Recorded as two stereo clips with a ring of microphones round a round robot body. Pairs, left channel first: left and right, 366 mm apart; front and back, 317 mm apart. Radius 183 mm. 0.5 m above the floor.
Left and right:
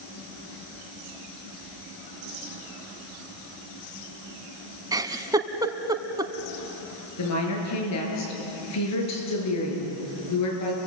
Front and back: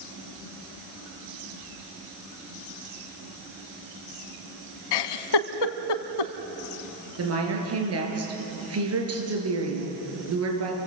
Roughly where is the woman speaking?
Behind left.